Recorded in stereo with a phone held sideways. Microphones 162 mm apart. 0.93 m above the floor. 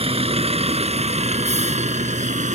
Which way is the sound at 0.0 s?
40° right (ahead or behind).